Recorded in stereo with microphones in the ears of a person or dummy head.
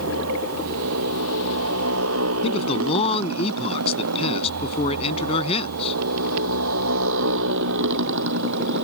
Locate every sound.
0.0 s a motorcycle: 85° right; by 8.8 s 60° right (ahead or behind)
2.4 s a man speaking: 30° left (ahead or behind)